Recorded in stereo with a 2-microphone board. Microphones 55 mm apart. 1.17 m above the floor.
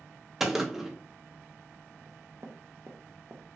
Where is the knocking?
60° right (ahead or behind), 0.7 m.